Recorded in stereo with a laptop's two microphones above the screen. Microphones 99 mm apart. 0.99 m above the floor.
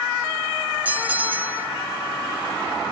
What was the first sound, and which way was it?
A bell, 15° right (ahead or behind).